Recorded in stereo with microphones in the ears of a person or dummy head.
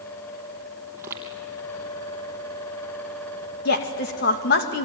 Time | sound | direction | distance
0.9 | footsteps | 15° right (ahead or behind) | 3 m
3.6 | a woman speaking | 60° left (ahead or behind) | 2.5 m